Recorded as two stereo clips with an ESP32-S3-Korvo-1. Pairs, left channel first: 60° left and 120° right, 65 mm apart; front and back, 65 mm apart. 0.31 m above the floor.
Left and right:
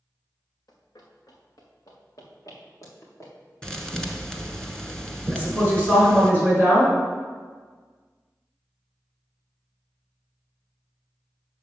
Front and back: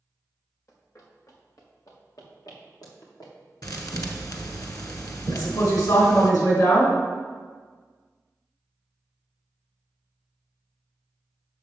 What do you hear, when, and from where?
0.7 s running footsteps: 45° left, 2.5 m; by 4.6 s 15° left, 4 m
3.6 s a thud: 20° right, 1.2 m
5.3 s a woman speaking: straight ahead, 4 m